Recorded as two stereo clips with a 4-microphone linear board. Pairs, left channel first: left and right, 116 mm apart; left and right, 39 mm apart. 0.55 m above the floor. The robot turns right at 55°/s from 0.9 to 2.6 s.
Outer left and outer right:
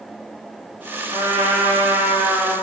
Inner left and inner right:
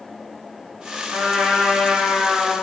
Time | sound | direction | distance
1.1 | a trumpet | 90° right | 1.6 m